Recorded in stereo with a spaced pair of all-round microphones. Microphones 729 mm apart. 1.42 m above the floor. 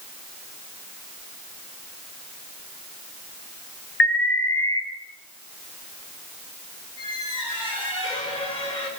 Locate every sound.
4.0 s an alarm: 30° left (ahead or behind), 2.0 m
7.0 s a squeak: 85° left, 5 m